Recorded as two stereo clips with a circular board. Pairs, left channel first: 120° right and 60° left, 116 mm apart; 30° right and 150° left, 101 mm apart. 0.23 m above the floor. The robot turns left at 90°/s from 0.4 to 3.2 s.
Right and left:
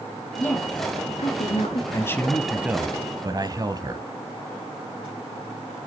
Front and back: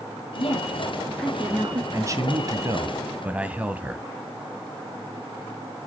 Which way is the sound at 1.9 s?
165° right.